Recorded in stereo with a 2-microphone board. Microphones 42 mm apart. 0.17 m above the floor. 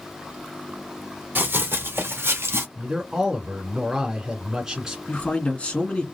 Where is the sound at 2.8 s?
10° right (ahead or behind), 2.0 m.